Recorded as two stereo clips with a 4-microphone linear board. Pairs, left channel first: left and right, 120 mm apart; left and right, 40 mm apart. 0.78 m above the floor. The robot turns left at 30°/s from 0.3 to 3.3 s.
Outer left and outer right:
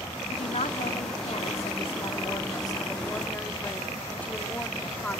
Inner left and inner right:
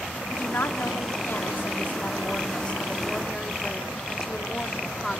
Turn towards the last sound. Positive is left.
turn(degrees=15)